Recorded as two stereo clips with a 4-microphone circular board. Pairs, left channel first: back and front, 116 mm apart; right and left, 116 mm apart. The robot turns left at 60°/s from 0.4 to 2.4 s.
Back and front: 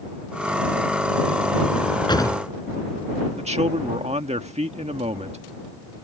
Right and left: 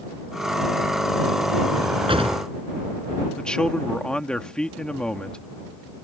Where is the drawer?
150° left; by 2.4 s 115° left.